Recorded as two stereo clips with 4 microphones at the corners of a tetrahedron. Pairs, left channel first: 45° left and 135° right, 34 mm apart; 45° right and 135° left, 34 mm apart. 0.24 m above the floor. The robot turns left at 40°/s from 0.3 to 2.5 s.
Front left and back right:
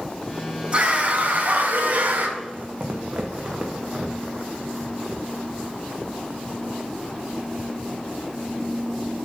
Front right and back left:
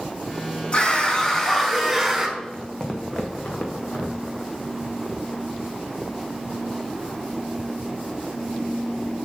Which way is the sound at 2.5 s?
120° right.